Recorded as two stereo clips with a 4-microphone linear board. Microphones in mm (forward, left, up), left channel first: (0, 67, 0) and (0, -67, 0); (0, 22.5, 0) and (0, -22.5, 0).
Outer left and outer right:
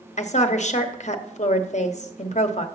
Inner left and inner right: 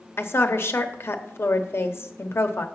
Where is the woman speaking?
55° left (ahead or behind), 0.9 m.